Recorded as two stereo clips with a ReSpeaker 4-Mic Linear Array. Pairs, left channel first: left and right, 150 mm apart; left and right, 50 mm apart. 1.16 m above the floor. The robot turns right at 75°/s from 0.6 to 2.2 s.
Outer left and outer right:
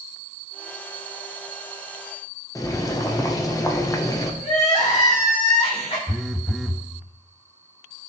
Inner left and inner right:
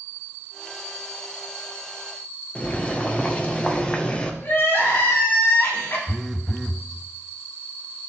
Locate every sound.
2.5 s boiling: 25° left (ahead or behind), 0.9 m
4.4 s crying: 45° left (ahead or behind), 3 m
6.1 s a phone buzzing: 5° left (ahead or behind), 0.6 m